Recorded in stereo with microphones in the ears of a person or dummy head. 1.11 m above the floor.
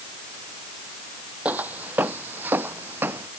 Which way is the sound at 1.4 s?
Centre (ahead or behind).